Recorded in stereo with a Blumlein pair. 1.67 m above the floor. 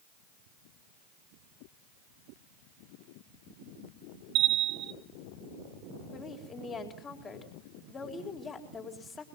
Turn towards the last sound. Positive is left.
turn(degrees=20)